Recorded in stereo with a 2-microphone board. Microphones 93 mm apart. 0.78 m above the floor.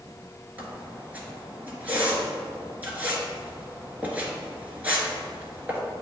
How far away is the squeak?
About 1.4 m.